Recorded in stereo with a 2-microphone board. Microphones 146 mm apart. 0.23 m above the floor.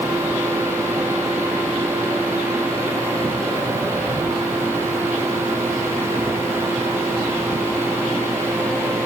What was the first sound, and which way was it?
Only background noise.